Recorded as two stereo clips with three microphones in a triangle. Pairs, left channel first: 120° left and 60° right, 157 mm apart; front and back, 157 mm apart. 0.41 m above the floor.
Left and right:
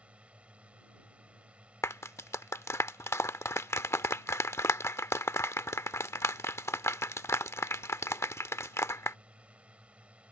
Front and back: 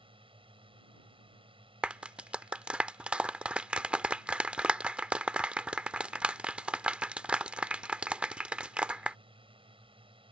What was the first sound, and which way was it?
A drone, 140° right.